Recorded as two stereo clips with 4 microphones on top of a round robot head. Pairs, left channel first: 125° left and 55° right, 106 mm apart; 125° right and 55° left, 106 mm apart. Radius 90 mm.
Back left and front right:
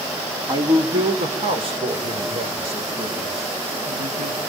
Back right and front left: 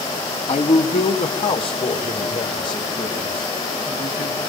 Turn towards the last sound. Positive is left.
turn(degrees=-75)